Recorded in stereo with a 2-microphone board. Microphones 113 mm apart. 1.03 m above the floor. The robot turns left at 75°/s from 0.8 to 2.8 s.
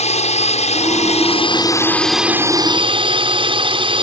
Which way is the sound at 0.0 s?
100° left.